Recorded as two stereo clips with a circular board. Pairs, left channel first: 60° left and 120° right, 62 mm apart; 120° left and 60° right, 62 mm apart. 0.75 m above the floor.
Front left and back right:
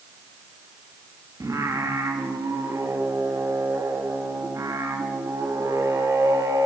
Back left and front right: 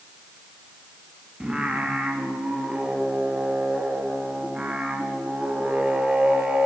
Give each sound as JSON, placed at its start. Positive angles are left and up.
{"t": 1.4, "sound": "singing", "azimuth_deg": -130, "distance_m": 0.9}